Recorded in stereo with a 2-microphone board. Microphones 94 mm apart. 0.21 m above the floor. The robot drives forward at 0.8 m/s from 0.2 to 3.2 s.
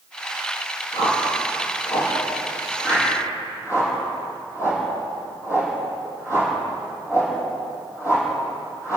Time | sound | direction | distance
0.9 | a whoosh | 40° left (ahead or behind) | 6 m